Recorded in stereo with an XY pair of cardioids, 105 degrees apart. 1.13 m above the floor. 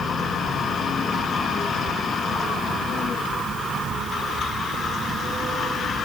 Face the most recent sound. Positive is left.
No sound to turn to.